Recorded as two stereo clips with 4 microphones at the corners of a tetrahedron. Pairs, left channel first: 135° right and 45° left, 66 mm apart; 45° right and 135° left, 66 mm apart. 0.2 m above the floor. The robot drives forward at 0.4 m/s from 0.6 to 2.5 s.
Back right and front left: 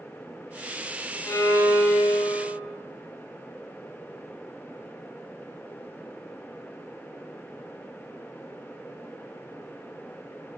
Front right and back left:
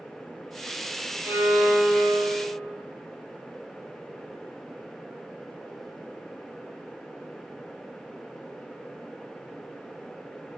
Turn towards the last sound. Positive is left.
turn(degrees=-165)